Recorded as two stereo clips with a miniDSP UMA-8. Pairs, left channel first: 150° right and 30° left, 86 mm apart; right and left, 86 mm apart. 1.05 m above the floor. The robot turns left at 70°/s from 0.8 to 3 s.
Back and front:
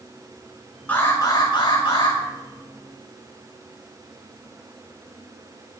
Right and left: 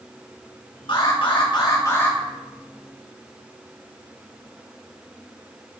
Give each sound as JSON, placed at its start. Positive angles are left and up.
{"t": 0.9, "sound": "an alarm", "azimuth_deg": -75, "distance_m": 6.5}